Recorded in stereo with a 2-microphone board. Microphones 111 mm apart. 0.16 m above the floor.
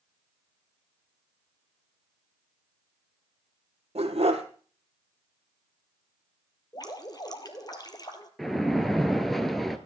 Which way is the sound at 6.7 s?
35° left (ahead or behind).